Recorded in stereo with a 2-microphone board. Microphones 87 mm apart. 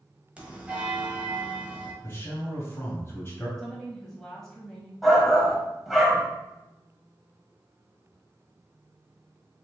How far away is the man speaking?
About 1.4 m.